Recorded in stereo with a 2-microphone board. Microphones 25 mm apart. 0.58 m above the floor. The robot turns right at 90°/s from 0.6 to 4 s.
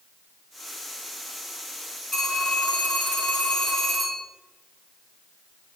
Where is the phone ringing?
15° left, 4 m; by 4.2 s 175° right, 4 m.